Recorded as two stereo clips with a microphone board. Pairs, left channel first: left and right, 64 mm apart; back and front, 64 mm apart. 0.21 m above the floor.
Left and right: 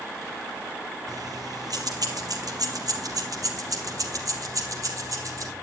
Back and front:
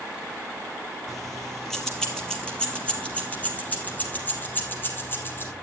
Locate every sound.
1.1 s keys jangling: 90° right, 3.5 m; by 5.5 s 125° right, 4.5 m